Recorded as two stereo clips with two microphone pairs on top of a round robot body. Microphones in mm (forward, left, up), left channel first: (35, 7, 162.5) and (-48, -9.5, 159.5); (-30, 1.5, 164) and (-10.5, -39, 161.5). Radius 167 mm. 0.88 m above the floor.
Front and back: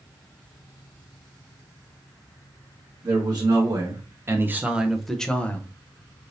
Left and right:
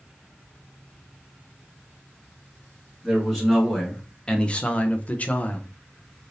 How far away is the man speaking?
About 1.3 m.